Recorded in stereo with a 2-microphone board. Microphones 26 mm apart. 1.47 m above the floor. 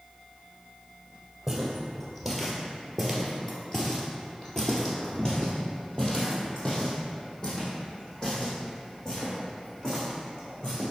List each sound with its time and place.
1.5 s footsteps: centre (ahead or behind), 1.9 m; by 10.9 s 25° left (ahead or behind), 5 m